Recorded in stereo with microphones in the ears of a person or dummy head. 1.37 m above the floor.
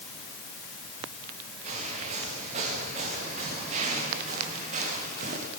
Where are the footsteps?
35° right (ahead or behind), 8.5 m; by 5.5 s 45° right (ahead or behind), 6.5 m.